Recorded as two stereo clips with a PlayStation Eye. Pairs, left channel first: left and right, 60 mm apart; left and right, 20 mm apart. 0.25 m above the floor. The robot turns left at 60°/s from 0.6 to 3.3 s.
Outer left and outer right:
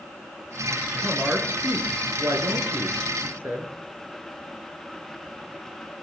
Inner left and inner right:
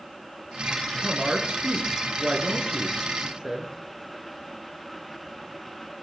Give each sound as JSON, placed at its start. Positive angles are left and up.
{"t": 1.0, "sound": "a woman speaking", "azimuth_deg": 0, "distance_m": 4.5}